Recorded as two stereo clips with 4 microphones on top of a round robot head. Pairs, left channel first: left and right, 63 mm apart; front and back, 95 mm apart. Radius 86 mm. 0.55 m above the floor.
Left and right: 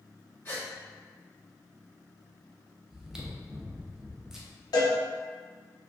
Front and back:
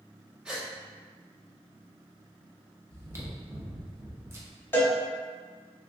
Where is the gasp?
105° left, 1.5 m.